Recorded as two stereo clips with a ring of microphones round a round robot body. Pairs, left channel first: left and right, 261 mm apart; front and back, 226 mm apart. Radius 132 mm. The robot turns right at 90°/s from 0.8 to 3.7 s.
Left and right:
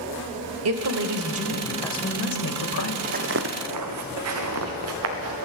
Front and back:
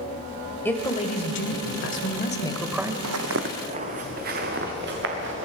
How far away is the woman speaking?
About 1.4 m.